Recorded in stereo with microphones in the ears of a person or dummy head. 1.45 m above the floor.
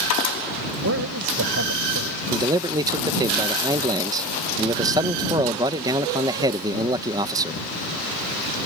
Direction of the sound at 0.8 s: 70° right (ahead or behind).